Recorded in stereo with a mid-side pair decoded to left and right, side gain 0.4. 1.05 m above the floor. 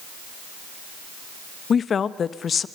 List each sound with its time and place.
1.7 s a woman speaking: 55° left, 1.1 m